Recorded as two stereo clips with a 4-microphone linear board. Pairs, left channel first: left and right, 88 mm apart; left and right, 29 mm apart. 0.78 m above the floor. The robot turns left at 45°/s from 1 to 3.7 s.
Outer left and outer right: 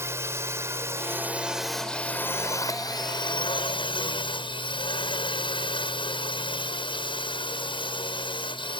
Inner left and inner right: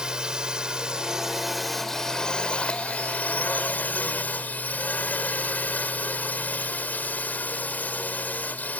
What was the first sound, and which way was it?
A drone, 150° right.